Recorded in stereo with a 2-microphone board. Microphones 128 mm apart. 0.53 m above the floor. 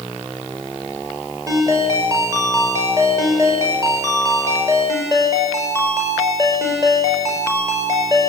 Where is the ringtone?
25° right (ahead or behind), 5.5 m.